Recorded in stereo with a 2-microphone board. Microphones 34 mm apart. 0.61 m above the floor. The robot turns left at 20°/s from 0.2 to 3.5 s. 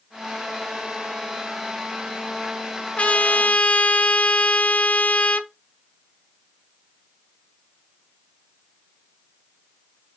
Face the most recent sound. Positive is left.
turn(degrees=45)  # may be behind; listen again after turning